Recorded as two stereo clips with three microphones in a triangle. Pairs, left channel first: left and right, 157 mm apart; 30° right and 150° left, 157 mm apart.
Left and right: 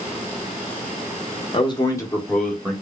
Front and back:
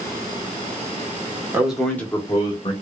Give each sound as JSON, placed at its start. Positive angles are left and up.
{"t": 1.5, "sound": "a man speaking", "azimuth_deg": 75, "distance_m": 0.8}